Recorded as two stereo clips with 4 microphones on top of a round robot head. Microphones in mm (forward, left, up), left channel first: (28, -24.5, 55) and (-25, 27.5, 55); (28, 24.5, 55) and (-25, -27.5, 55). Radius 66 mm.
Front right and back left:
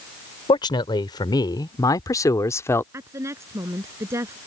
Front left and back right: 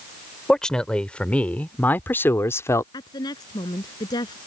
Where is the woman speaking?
80° left.